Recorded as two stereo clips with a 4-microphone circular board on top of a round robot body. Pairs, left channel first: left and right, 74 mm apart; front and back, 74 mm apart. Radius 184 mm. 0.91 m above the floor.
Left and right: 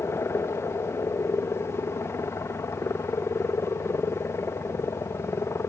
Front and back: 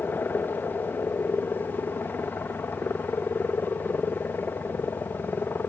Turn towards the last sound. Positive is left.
turn(degrees=55)